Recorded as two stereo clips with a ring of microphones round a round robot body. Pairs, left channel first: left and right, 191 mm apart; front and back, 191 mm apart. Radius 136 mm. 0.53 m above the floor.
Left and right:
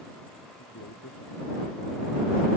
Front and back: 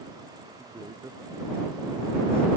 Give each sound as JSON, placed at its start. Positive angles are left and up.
{"t": 0.6, "sound": "a man speaking", "azimuth_deg": 105}